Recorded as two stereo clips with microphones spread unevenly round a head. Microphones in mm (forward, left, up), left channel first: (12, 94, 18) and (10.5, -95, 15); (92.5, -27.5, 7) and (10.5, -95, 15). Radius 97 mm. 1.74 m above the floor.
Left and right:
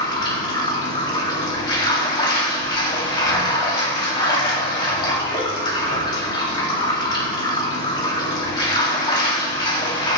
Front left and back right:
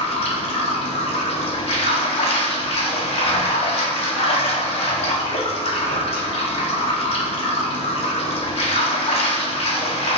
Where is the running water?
25° left, 2 m.